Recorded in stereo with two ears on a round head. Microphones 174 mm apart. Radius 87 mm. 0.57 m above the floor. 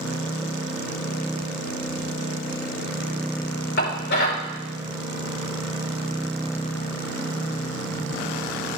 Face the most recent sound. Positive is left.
turn(degrees=60)  # may be behind; listen again after turning